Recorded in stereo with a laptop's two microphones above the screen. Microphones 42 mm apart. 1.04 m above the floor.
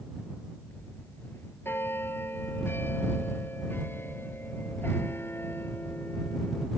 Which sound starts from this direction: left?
A bell, at 0.7 s.